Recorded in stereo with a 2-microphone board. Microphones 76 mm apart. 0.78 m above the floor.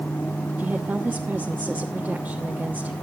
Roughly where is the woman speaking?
Right.